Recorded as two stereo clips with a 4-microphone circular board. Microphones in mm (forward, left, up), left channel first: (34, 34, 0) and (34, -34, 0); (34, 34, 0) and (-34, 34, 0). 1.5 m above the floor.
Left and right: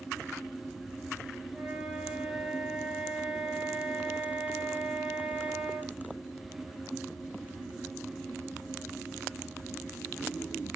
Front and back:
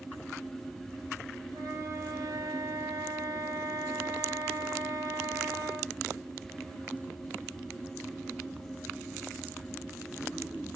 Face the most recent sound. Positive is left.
turn(degrees=-175)